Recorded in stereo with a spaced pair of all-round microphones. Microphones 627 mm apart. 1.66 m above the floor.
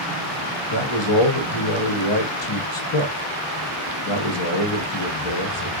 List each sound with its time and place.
0.7 s a man speaking: 45° left (ahead or behind), 0.9 m